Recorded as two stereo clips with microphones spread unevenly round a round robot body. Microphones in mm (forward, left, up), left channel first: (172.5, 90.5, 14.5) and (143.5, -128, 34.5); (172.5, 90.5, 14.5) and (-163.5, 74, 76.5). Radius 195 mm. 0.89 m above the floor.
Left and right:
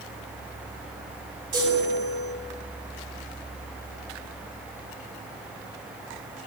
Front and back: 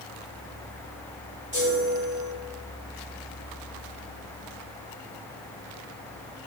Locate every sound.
1.5 s a chime: 105° right, 2.5 m